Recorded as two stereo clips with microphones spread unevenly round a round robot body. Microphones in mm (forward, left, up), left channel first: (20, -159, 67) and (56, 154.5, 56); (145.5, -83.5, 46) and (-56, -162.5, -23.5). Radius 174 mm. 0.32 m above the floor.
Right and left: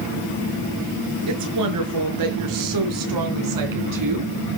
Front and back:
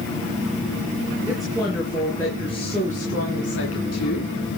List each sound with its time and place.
1.3 s a woman speaking: 120° left, 4.5 m; by 4.3 s 65° left, 3.5 m